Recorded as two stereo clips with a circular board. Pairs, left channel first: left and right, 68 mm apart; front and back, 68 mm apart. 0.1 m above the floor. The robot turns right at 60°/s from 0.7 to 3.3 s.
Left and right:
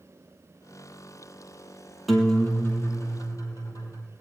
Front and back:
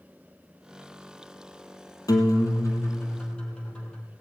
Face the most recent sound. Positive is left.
turn(degrees=75)